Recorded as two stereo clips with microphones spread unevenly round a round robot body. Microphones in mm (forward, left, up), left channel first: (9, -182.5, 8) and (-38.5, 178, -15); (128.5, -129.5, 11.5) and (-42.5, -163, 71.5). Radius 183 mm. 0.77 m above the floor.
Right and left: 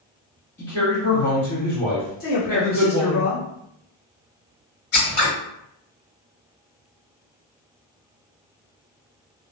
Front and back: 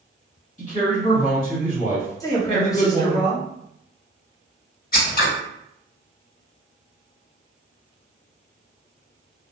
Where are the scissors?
30° right, 1.7 m.